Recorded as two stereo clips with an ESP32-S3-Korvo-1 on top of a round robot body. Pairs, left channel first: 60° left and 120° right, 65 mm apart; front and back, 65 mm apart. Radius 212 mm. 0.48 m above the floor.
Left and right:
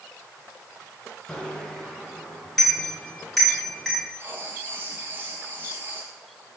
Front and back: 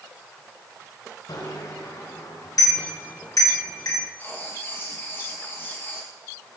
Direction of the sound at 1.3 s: 20° right.